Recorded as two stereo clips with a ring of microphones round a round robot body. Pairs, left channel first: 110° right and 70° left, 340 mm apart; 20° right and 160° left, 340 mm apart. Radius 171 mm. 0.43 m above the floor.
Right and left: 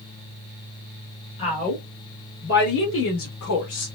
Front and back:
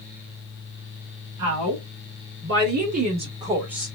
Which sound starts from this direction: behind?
A woman speaking, at 1.4 s.